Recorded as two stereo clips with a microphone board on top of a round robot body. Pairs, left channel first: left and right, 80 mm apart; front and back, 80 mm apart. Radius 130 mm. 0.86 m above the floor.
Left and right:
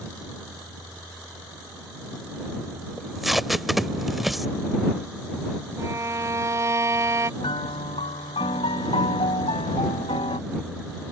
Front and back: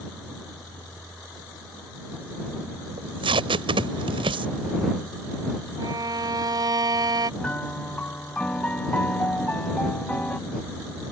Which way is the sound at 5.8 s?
145° right.